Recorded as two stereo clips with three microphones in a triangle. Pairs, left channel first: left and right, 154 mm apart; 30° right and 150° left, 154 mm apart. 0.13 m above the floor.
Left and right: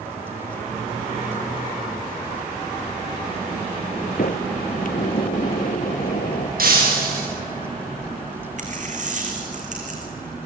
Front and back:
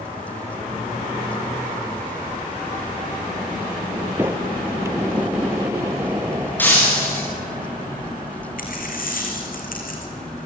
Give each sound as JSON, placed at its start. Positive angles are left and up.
{"t": 4.2, "sound": "a sliding door", "azimuth_deg": 80, "distance_m": 1.3}
{"t": 6.6, "sound": "breaking glass", "azimuth_deg": -110, "distance_m": 7.5}
{"t": 8.6, "sound": "a dropped coin", "azimuth_deg": -55, "distance_m": 3.0}